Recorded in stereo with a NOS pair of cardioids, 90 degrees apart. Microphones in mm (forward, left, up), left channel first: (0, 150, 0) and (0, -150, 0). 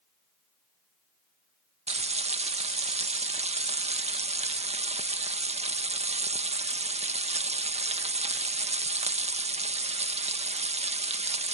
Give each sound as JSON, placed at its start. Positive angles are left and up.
{"t": 1.9, "sound": "frying", "azimuth_deg": -20}